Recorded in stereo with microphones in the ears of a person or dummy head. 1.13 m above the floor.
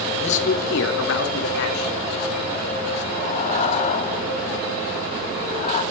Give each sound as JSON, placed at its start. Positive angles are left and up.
{"t": 0.2, "sound": "a man speaking", "side_deg": 35, "distance_m": 1.4}
{"t": 3.1, "sound": "breathing", "side_deg": 50, "distance_m": 1.1}